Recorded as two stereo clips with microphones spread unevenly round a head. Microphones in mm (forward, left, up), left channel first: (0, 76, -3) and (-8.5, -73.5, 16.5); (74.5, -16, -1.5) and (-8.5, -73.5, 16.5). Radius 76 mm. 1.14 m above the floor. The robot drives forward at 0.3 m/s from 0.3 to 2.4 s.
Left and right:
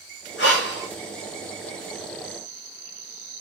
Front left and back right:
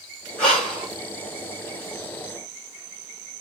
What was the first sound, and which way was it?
Breathing, 85° left.